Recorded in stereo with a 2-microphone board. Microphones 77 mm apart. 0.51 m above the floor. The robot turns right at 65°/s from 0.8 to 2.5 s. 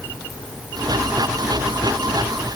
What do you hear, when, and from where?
Only background noise.